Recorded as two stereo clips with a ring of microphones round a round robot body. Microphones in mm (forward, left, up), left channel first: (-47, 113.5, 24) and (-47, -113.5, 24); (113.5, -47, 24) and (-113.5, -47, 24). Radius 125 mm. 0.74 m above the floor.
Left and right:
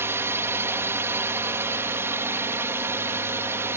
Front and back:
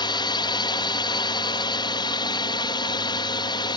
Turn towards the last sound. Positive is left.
turn(degrees=-25)